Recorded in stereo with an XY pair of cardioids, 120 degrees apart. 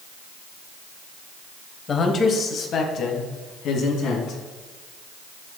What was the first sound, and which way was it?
A man speaking, 40° left.